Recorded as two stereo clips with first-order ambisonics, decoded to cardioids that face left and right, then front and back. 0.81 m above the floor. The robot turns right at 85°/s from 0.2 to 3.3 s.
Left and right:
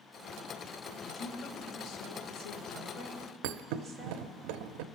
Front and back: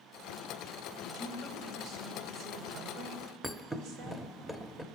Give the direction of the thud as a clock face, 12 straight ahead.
3 o'clock.